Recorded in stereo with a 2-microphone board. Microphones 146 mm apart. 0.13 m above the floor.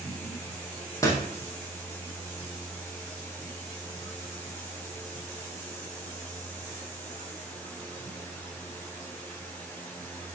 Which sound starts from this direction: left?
A door slam, at 1.0 s.